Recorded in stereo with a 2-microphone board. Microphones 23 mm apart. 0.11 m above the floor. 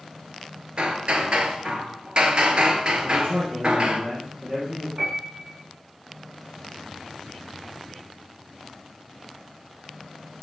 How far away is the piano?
About 7.5 m.